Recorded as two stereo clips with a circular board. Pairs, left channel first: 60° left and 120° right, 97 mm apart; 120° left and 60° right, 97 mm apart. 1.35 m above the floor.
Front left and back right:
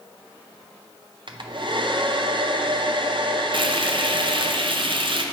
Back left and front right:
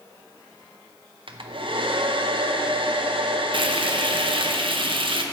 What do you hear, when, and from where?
1.3 s a hair dryer: 85° right, 0.6 m
3.5 s frying: 85° right, 0.6 m